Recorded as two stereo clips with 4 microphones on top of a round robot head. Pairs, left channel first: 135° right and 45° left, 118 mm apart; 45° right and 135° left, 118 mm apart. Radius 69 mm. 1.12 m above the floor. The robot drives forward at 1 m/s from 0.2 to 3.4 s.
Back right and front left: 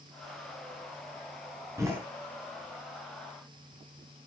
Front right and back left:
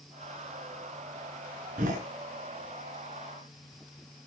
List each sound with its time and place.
1.8 s a door slam: 110° left, 9 m